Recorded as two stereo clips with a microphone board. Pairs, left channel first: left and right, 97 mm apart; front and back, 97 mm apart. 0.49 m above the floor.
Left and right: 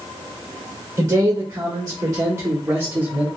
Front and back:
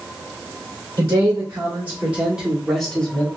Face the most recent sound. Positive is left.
turn(degrees=-40)